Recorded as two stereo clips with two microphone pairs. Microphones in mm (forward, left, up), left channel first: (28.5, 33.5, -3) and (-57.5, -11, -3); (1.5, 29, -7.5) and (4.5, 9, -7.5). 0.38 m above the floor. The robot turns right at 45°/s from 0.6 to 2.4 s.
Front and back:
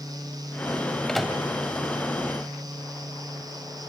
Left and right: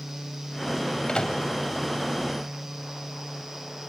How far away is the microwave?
About 1.4 m.